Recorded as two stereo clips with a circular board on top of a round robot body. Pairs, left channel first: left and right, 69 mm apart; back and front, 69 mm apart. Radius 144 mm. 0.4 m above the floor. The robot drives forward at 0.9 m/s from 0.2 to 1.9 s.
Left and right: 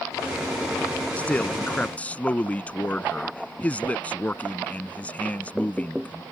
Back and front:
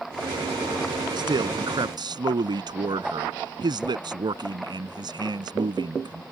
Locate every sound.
1.2 s a man speaking: 15° left; by 6.2 s 20° left